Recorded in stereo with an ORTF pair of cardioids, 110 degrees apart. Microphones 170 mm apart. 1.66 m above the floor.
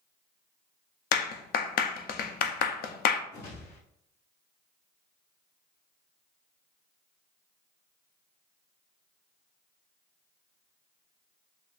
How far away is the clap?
About 0.6 m.